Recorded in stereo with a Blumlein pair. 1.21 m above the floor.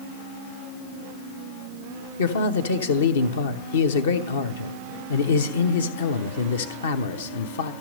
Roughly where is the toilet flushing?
No toilet flushing in this recording.